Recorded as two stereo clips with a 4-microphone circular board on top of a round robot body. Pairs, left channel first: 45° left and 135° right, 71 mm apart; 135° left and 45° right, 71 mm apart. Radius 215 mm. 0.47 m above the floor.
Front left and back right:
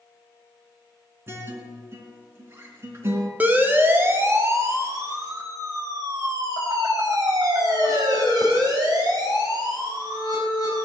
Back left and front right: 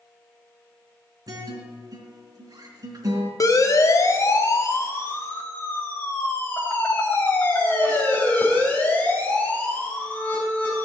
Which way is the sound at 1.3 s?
80° right.